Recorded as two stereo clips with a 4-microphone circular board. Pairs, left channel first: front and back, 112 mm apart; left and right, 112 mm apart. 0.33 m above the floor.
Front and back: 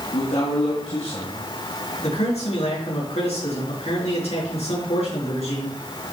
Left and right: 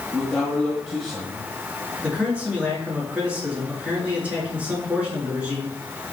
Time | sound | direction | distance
0.1 | a man speaking | 5° left | 3 m
2.0 | a man speaking | 15° right | 5.5 m